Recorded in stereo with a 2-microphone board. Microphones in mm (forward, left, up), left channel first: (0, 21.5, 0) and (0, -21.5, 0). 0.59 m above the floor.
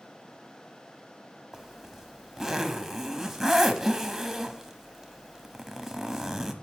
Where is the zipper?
5° right (ahead or behind), 0.9 m.